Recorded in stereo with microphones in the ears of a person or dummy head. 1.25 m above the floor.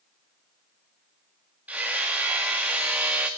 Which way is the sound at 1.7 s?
10° right (ahead or behind).